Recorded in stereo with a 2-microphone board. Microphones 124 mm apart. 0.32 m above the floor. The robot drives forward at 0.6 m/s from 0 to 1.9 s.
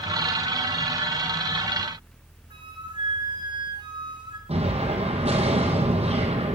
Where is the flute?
40° right (ahead or behind), 2.5 m.